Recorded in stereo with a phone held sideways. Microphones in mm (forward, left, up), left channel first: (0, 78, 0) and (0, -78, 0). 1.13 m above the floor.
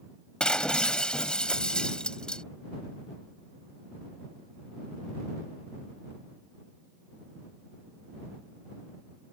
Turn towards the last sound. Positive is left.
turn(degrees=5)  # may be behind; listen again after turning